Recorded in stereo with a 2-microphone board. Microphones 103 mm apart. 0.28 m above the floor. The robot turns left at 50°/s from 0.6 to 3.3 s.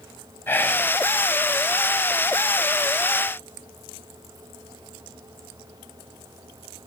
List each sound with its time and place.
0.5 s whispering: 20° left (ahead or behind), 1.5 m; by 0.9 s 10° left (ahead or behind), 1.5 m